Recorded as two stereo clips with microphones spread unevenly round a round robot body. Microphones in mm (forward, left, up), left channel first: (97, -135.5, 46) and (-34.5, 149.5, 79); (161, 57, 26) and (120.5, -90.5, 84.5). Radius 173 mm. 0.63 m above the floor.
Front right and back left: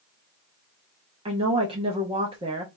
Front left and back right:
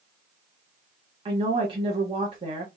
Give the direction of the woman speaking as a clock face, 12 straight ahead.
6 o'clock.